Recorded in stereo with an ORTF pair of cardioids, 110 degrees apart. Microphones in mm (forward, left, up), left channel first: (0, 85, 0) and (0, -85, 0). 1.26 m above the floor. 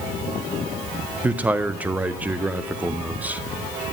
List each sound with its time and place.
1.2 s a man speaking: 10° right, 0.6 m